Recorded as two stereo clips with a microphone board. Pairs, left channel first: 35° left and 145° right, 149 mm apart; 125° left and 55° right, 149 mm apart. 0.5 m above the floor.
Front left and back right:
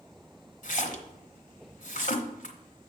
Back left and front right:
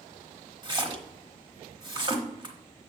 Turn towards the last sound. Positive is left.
turn(degrees=0)